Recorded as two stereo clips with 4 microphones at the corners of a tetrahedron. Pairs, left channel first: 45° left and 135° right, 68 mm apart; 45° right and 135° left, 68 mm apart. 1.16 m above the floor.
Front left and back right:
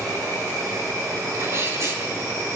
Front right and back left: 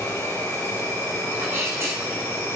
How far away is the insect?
About 6.5 m.